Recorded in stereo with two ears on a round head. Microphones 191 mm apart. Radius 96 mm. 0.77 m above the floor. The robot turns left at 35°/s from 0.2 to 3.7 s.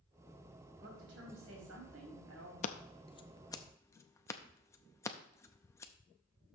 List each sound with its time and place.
0.8 s a woman speaking: 45° right, 4.5 m; by 2.5 s 105° right, 4.5 m
2.6 s scissors: 35° left (ahead or behind), 0.5 m; by 5.9 s 15° left (ahead or behind), 0.5 m